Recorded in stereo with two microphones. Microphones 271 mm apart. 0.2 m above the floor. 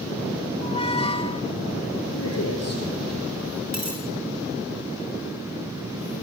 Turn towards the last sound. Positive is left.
turn(degrees=-75)  # may be behind; listen again after turning